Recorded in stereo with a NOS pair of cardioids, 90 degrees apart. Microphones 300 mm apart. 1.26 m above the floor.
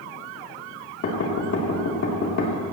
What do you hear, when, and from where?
1.0 s knocking: 55° left, 3 m